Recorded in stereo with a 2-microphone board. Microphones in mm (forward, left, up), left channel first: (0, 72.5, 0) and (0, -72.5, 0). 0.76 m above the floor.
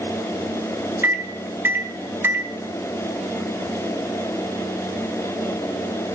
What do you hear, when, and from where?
1.0 s a microwave: 15° right (ahead or behind), 0.7 m